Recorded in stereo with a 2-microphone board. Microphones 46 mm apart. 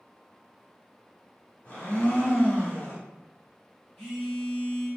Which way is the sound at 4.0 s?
10° left (ahead or behind).